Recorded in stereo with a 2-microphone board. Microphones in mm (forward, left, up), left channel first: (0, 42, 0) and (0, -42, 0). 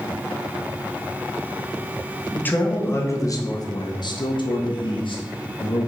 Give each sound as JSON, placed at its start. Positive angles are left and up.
{"t": 2.3, "sound": "a man speaking", "side_deg": 20, "distance_m": 1.4}